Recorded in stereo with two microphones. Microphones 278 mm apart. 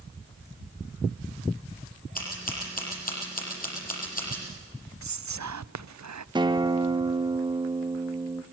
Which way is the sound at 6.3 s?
15° right (ahead or behind).